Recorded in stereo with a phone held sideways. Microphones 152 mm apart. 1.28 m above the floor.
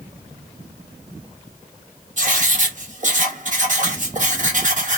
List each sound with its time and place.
2.2 s writing: 55° right (ahead or behind), 1.0 m